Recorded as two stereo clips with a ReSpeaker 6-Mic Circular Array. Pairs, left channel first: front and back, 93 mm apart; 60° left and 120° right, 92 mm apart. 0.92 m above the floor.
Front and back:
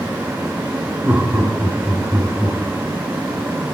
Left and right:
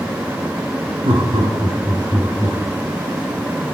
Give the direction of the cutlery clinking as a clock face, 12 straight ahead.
I don't hear cutlery clinking.